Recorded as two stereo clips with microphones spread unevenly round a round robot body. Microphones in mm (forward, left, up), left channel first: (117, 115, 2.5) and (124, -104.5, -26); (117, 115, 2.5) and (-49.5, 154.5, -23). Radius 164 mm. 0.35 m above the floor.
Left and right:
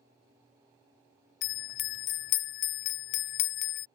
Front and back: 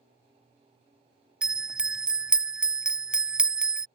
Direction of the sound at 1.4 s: 80° left.